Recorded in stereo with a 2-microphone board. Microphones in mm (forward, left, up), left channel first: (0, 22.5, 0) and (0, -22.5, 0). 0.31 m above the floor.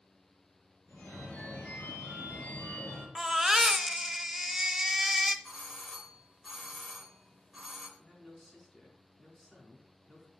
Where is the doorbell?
Centre (ahead or behind), 2.5 m.